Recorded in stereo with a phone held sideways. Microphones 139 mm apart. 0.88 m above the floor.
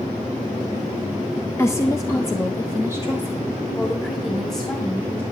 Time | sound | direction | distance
1.6 | a woman speaking | 20° left (ahead or behind) | 0.5 m